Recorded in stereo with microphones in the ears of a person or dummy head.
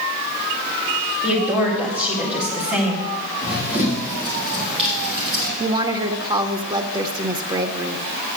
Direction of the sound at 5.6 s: 30° right (ahead or behind).